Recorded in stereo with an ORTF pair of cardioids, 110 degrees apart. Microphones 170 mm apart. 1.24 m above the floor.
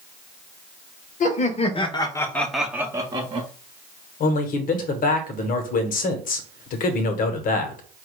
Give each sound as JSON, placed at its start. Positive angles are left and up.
{"t": 1.2, "sound": "laughter", "azimuth_deg": 50, "distance_m": 1.1}
{"t": 4.2, "sound": "a man speaking", "azimuth_deg": 60, "distance_m": 1.1}